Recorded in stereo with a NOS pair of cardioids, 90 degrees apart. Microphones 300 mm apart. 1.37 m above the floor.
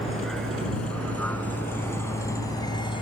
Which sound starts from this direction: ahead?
A vehicle, at 0.0 s.